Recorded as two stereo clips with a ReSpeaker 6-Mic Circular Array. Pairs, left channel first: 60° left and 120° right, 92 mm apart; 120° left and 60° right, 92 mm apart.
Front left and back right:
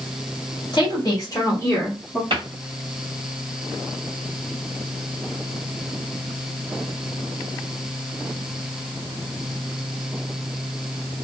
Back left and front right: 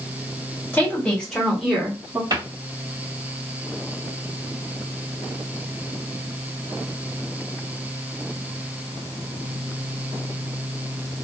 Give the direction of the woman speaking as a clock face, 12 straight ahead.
10 o'clock.